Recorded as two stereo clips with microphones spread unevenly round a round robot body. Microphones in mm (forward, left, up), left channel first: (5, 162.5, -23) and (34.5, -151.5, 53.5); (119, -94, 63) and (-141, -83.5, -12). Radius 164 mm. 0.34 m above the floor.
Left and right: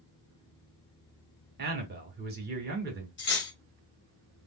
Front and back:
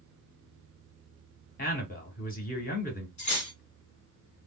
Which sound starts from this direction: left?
Cutlery clinking, at 3.2 s.